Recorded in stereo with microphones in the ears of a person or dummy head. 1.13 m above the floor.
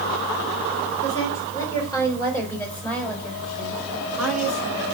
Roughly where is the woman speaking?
Left.